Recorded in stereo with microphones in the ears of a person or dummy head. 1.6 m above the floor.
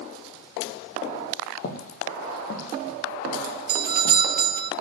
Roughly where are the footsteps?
Left.